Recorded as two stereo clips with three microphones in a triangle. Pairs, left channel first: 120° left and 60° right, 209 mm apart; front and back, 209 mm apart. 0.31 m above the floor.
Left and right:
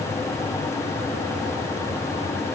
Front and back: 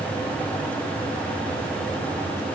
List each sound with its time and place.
Only background noise.